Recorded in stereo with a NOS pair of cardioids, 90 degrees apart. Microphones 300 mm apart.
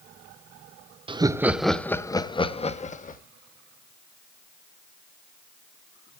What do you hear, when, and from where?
1.1 s laughter: 20° right, 0.8 m; by 3.2 s 25° left, 1.5 m